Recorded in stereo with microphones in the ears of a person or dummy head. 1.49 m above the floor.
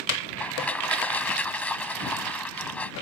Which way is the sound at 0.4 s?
10° left (ahead or behind).